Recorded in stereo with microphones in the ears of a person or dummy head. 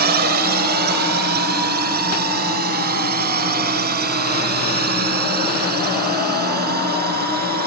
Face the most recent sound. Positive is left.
turn(degrees=-50)  # may be behind; listen again after turning